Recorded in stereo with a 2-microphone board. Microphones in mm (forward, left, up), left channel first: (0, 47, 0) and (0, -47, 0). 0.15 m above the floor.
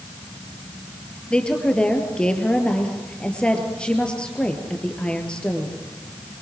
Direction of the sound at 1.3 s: 10° left (ahead or behind).